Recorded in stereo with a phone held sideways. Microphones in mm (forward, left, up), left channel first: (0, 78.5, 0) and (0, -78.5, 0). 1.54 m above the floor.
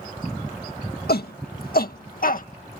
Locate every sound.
1.1 s a shout: 80° left; by 2.5 s 60° left (ahead or behind)